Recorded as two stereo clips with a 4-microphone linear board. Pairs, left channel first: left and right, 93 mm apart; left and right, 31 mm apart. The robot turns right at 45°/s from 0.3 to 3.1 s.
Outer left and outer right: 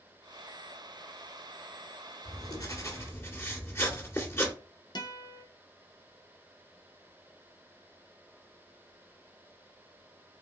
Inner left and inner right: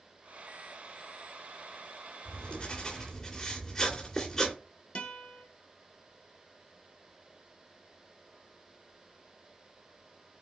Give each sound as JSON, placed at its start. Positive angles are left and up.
{"t": 2.2, "sound": "writing", "azimuth_deg": 110, "distance_m": 2.5}
{"t": 5.0, "sound": "a guitar", "side_deg": 50, "distance_m": 1.2}